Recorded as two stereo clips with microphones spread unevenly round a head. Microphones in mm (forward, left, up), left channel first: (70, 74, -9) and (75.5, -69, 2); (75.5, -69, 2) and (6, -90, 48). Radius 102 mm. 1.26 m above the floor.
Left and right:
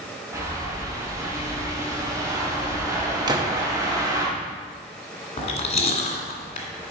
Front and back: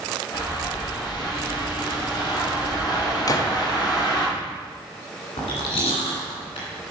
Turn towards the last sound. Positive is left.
turn(degrees=60)